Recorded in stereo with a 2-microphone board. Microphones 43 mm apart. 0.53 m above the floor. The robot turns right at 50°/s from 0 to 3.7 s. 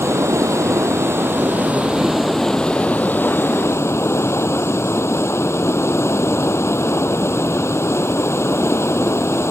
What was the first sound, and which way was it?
Running water, 115° right.